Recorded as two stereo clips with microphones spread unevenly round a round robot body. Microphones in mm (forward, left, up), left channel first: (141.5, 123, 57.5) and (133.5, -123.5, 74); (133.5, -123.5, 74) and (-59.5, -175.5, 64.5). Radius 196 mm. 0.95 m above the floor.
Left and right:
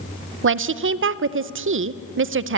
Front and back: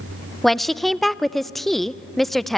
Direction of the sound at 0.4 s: 75° right.